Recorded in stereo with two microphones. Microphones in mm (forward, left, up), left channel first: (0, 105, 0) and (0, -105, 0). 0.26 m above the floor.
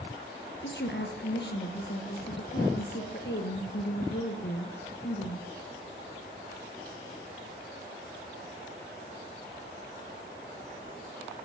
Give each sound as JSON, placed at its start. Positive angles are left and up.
{"t": 0.6, "sound": "a woman speaking", "side_deg": 60, "distance_m": 4.5}